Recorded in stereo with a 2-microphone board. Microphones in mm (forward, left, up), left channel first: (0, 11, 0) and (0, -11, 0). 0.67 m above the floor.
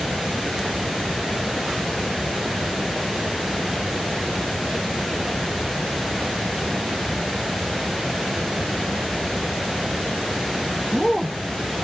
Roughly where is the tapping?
No tapping in this recording.